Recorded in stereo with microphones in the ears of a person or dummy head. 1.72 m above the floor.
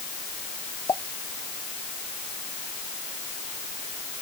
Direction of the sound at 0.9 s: 20° left (ahead or behind).